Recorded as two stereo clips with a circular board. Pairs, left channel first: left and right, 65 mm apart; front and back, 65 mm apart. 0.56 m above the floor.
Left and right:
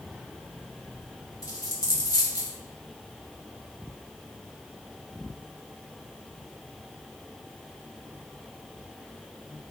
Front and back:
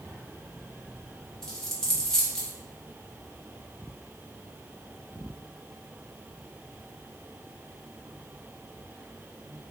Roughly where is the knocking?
No knocking in this recording.